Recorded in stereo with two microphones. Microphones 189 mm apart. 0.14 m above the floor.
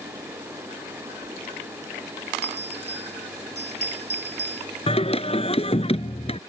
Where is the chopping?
No chopping in this recording.